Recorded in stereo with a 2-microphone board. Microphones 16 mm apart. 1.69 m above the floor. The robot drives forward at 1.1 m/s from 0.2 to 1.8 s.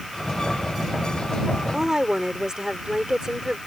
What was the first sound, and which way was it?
A woman speaking, 35° right (ahead or behind).